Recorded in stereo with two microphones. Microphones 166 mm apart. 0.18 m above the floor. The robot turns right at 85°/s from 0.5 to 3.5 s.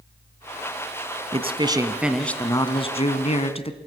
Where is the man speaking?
70° right, 1.5 m; by 3.8 s 115° left, 1.5 m.